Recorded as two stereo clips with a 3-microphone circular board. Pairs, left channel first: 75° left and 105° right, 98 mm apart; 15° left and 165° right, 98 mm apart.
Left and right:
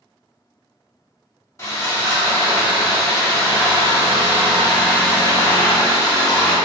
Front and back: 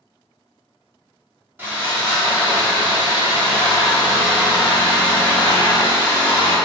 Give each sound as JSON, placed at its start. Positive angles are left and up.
{"t": 1.6, "sound": "sawing", "azimuth_deg": 130, "distance_m": 0.8}